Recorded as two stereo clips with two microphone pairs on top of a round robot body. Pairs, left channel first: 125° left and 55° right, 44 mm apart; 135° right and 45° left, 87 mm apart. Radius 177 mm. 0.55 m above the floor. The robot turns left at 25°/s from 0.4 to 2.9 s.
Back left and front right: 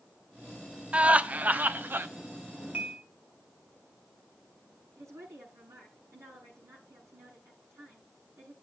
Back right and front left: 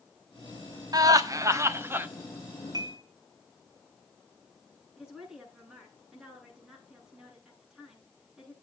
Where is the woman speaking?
40° right, 7.5 m.